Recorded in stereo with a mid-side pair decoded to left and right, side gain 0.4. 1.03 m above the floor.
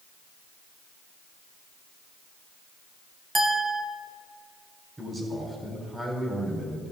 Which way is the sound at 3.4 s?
20° right.